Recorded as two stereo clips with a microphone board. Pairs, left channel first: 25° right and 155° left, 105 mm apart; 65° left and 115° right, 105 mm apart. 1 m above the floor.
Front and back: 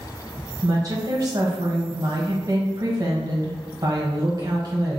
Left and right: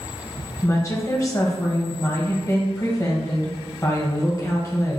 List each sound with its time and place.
0.6 s a woman speaking: 120° left, 1.0 m